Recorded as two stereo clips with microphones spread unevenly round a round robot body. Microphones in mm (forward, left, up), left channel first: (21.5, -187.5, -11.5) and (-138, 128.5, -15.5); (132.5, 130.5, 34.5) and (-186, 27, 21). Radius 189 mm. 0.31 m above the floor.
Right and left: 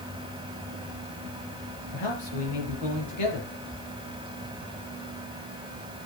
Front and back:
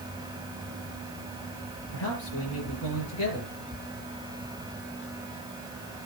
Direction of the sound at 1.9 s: 40° right.